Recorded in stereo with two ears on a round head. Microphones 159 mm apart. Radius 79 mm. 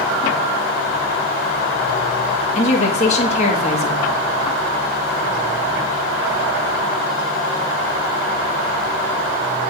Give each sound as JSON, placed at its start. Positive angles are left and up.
{"t": 2.5, "sound": "a woman speaking", "side_deg": 35, "distance_m": 1.6}